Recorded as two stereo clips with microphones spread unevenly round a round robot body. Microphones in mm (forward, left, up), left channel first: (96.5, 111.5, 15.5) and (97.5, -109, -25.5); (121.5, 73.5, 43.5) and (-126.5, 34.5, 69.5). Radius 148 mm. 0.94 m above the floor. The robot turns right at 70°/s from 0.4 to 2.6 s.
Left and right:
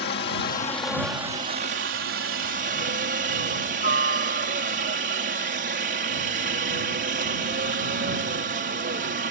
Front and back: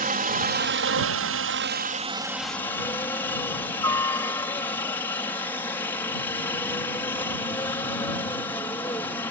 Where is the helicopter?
140° left; by 9.3 s 65° right.